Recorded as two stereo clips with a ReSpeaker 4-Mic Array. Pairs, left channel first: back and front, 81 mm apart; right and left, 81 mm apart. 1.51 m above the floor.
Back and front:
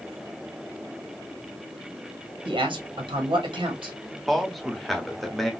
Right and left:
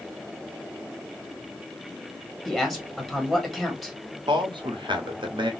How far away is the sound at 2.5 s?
About 1.5 m.